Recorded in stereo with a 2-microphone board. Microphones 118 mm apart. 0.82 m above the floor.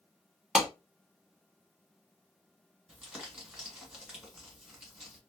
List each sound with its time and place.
0.6 s a clap: 5° right (ahead or behind), 0.9 m
2.9 s crumpling: 5° right (ahead or behind), 1.5 m